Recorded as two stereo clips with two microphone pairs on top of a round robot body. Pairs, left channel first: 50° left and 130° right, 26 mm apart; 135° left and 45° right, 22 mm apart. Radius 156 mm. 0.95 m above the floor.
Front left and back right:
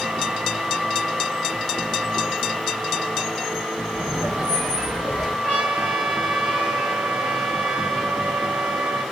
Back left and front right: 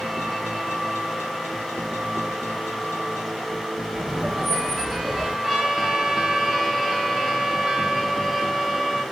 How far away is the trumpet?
About 1.1 m.